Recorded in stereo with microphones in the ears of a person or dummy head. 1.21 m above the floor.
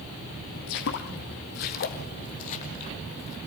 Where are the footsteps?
55° left (ahead or behind), 2 m; by 3.4 s 30° left (ahead or behind), 2 m.